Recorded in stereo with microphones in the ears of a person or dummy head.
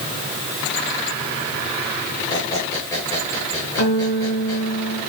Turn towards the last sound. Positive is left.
turn(degrees=75)  # may be behind; listen again after turning